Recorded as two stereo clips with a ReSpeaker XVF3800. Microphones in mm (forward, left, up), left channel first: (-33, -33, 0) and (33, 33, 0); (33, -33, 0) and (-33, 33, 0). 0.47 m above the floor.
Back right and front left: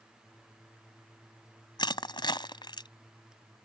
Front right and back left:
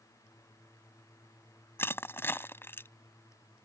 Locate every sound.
1.8 s crushing: 110° right